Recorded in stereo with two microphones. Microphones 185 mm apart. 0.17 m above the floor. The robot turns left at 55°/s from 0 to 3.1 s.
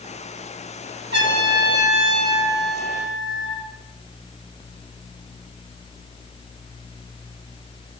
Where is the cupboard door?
No cupboard door in this recording.